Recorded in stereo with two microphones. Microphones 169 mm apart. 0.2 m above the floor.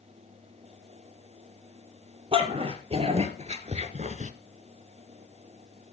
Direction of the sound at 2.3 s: 35° right (ahead or behind).